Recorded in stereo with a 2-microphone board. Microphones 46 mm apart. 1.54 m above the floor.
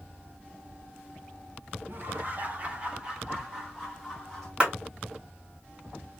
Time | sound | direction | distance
1.9 | laughter | 50° right (ahead or behind) | 1.7 m
4.6 | a clap | 20° right (ahead or behind) | 3 m